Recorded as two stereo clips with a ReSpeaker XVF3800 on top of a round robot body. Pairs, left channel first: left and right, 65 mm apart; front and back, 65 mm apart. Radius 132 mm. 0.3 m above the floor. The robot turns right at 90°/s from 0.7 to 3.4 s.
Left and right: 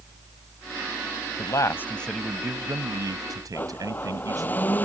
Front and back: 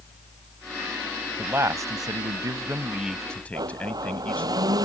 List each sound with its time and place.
1.4 s a man speaking: 110° left; by 4.5 s 65° right
3.5 s a blender: 155° left